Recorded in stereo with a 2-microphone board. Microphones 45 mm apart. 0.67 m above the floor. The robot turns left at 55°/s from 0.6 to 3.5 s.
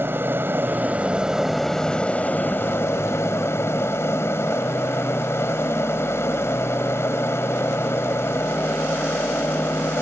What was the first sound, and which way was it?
An aircraft, 130° right.